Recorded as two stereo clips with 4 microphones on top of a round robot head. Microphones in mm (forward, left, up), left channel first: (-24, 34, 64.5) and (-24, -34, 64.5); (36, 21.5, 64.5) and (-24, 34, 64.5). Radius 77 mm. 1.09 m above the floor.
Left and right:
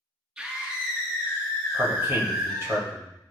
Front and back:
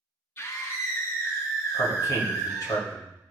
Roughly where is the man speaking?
Ahead right.